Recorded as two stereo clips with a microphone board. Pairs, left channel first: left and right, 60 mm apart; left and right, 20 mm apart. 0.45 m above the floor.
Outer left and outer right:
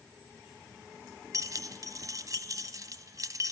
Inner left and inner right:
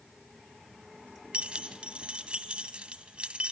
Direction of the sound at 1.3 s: 70° right (ahead or behind).